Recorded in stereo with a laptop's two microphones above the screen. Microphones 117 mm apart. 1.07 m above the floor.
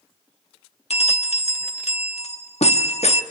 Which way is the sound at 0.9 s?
65° left (ahead or behind).